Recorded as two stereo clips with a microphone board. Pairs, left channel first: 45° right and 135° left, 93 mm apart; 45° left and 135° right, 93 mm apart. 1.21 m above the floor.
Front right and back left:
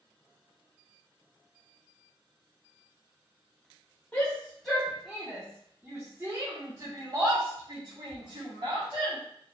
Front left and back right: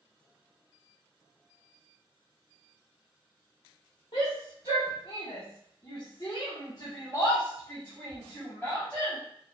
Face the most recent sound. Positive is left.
turn(degrees=120)